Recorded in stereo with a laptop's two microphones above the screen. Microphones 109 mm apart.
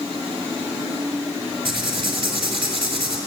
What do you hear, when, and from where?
1.6 s writing: 50° right (ahead or behind), 4.5 m